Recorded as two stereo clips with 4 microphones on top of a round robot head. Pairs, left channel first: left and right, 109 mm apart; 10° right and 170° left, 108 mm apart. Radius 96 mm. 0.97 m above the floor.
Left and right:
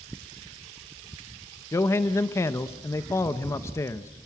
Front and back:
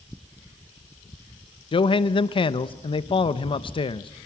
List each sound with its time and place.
1.7 s a man speaking: 25° left, 0.9 m